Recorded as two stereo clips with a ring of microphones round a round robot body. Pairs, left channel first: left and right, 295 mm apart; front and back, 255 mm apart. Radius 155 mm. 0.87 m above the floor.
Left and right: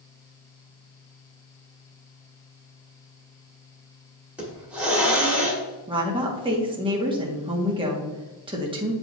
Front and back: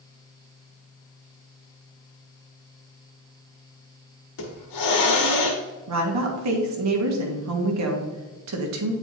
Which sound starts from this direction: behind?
A woman speaking, at 5.9 s.